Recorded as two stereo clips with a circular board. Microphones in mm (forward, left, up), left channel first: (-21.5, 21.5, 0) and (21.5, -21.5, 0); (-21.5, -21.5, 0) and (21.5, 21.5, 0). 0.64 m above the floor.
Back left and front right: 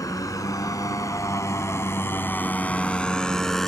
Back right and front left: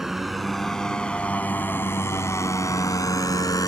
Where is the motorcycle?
130° left; by 3.7 s 140° right.